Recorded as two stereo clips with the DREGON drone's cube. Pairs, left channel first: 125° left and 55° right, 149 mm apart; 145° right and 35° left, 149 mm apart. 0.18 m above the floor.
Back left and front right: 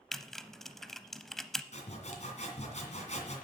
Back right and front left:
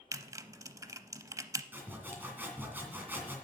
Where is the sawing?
110° left, 2 m.